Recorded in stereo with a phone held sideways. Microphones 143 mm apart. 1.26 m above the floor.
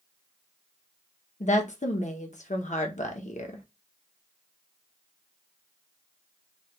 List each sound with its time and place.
1.4 s a woman speaking: 60° left (ahead or behind), 0.8 m